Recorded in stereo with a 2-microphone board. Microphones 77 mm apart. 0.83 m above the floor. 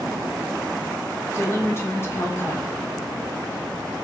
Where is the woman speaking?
30° left (ahead or behind), 0.7 m.